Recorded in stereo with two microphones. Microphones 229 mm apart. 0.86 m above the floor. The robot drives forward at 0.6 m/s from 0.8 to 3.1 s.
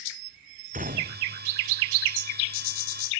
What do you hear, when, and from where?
0.7 s a gunshot: 35° right (ahead or behind)